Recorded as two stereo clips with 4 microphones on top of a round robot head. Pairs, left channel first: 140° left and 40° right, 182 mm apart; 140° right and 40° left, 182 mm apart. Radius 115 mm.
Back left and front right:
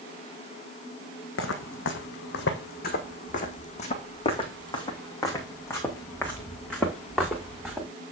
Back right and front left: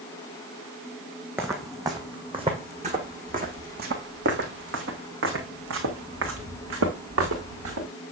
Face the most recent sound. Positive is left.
turn(degrees=50)